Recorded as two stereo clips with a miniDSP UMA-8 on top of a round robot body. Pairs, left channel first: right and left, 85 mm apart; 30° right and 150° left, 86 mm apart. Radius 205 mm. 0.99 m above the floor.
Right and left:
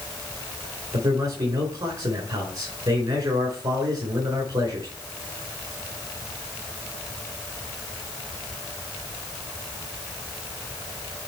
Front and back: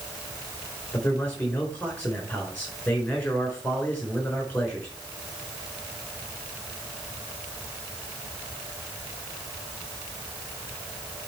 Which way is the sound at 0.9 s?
45° left.